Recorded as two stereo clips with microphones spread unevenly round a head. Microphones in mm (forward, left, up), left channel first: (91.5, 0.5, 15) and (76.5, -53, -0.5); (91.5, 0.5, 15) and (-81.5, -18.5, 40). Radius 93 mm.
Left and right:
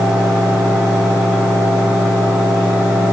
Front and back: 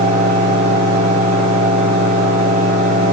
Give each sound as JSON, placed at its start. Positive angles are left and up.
{"t": 0.0, "sound": "a fan", "azimuth_deg": 150, "distance_m": 5.5}